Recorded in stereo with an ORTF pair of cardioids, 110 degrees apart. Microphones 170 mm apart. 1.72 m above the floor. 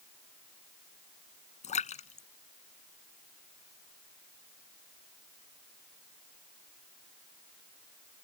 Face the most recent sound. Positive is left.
turn(degrees=45)